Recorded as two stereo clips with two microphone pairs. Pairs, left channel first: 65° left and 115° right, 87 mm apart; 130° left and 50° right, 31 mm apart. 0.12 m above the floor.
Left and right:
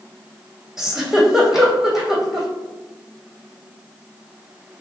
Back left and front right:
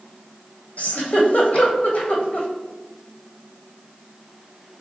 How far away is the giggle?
About 1.0 m.